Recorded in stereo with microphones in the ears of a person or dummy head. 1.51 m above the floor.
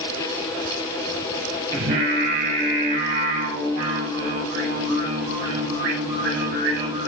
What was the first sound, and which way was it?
Singing, 50° right (ahead or behind).